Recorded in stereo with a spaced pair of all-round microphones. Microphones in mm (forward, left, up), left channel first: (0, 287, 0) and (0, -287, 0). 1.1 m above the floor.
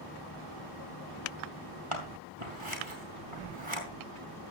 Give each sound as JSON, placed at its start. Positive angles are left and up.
{"t": 1.9, "sound": "scissors", "side_deg": -60, "distance_m": 3.5}